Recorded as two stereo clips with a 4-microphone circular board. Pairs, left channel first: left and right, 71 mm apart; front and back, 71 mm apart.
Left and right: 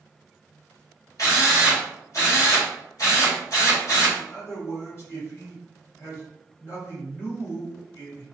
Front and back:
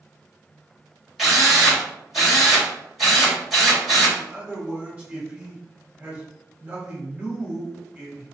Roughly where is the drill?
Left.